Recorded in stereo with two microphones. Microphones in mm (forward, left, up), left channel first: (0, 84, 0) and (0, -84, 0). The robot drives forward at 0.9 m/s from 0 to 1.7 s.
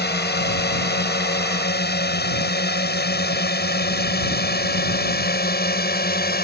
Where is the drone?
70° left (ahead or behind); by 6.5 s 65° left (ahead or behind).